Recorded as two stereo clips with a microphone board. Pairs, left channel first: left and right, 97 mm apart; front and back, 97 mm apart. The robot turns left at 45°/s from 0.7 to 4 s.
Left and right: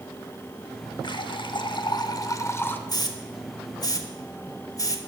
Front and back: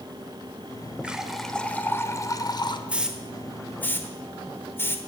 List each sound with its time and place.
1.0 s a running tap: 105° left, 0.7 m; by 2.8 s 25° left, 0.7 m
2.9 s a hiss: 110° left, 0.9 m; by 5.0 s 60° left, 0.9 m